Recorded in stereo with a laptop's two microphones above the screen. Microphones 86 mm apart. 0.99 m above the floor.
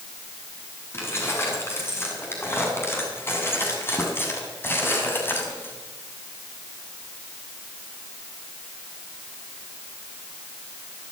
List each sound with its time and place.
0.9 s keys jangling: 30° left (ahead or behind), 8 m; by 5.8 s 25° left (ahead or behind), 5.5 m